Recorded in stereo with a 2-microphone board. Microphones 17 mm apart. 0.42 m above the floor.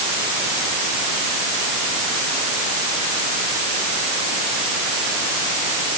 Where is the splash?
I don't hear a splash.